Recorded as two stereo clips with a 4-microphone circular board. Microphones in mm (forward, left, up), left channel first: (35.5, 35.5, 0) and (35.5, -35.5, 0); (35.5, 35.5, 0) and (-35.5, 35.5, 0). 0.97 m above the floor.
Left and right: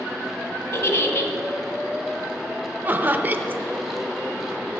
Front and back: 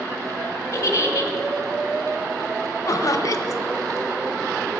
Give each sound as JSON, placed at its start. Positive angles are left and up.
{"t": 0.7, "sound": "a giggle", "azimuth_deg": 45, "distance_m": 1.0}
{"t": 2.9, "sound": "laughter", "azimuth_deg": -30, "distance_m": 0.6}